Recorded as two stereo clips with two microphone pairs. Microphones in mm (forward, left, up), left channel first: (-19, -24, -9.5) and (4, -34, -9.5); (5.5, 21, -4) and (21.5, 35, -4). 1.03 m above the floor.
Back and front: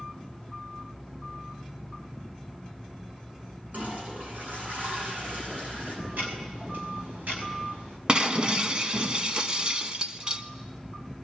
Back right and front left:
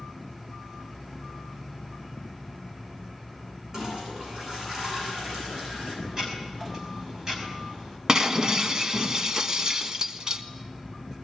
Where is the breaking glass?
10° left, 1.1 m.